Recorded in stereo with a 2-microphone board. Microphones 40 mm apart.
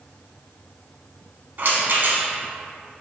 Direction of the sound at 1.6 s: 50° right (ahead or behind).